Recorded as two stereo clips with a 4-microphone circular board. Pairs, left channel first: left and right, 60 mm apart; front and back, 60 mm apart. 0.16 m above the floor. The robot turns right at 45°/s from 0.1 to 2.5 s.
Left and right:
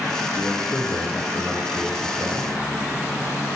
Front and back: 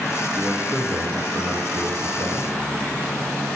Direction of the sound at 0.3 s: 100° left.